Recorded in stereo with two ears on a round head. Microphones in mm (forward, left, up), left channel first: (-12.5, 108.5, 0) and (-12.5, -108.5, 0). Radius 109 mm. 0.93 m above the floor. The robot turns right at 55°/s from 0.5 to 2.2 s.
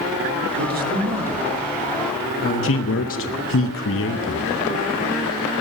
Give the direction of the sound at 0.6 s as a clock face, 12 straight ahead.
2 o'clock.